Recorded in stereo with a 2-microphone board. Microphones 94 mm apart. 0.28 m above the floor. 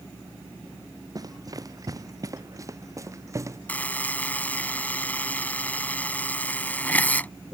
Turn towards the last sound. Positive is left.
turn(degrees=20)  # may be behind; listen again after turning